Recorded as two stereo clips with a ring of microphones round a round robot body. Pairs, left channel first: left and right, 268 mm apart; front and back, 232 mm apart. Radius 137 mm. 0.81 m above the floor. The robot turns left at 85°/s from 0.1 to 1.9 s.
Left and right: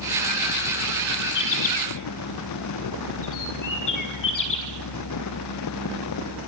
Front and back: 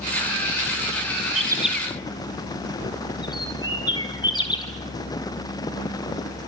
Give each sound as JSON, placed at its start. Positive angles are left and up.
{"t": 1.4, "sound": "a bird", "azimuth_deg": 120, "distance_m": 6.0}